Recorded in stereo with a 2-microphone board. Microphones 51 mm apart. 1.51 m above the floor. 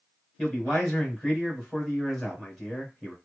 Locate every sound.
0.4 s a man speaking: centre (ahead or behind), 1.8 m